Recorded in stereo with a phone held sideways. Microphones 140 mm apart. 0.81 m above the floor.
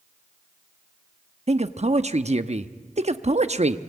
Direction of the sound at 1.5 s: 50° right (ahead or behind).